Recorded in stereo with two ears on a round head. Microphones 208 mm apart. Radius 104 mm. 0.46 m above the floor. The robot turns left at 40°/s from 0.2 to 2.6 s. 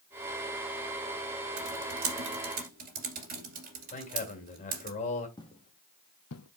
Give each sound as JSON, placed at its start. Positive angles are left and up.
{"t": 1.6, "sound": "typing on a keyboard", "side_deg": -80, "distance_m": 2.5}
{"t": 3.9, "sound": "a man speaking", "side_deg": 30, "distance_m": 3.0}
{"t": 5.4, "sound": "footsteps", "side_deg": 20, "distance_m": 1.6}